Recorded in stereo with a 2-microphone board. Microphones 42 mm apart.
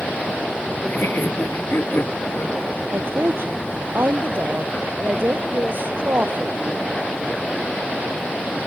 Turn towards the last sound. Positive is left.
turn(degrees=-60)  # may be behind; listen again after turning